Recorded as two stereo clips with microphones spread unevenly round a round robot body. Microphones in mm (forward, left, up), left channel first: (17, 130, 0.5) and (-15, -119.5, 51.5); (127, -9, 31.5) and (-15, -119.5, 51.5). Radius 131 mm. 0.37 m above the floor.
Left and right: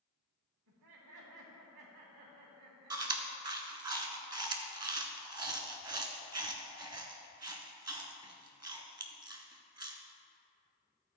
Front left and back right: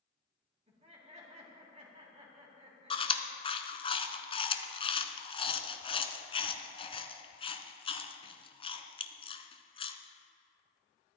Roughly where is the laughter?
Right.